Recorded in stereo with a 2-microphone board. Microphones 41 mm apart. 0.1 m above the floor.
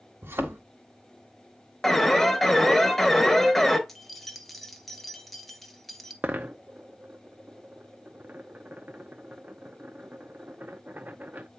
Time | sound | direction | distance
0.2 | a thud | 90° right | 1.9 m
1.8 | an alarm | 5° left (ahead or behind) | 1.2 m
3.9 | keys jangling | 5° left (ahead or behind) | 1.1 m
6.2 | a dropped coin | 45° right (ahead or behind) | 0.8 m